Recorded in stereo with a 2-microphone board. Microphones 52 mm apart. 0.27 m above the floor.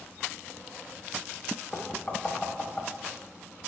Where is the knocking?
20° left (ahead or behind), 0.7 m.